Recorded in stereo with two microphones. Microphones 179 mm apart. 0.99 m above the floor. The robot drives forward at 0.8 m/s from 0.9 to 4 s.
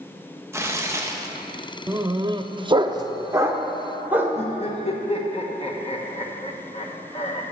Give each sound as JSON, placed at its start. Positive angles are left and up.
{"t": 0.5, "sound": "tearing paper", "side_deg": -15, "distance_m": 1.1}
{"t": 1.9, "sound": "a dog barking", "side_deg": -20, "distance_m": 0.7}
{"t": 4.3, "sound": "laughter", "side_deg": 35, "distance_m": 1.0}